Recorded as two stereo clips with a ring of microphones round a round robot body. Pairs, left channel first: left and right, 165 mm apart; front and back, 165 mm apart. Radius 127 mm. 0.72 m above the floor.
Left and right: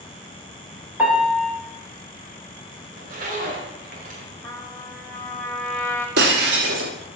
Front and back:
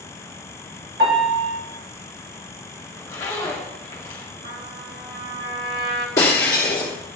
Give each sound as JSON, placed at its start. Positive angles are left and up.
{"t": 1.0, "sound": "a piano", "azimuth_deg": -170, "distance_m": 3.5}
{"t": 2.9, "sound": "a zipper", "azimuth_deg": -75, "distance_m": 1.9}
{"t": 4.4, "sound": "a trumpet", "azimuth_deg": 170, "distance_m": 1.9}
{"t": 6.2, "sound": "breaking glass", "azimuth_deg": -75, "distance_m": 1.2}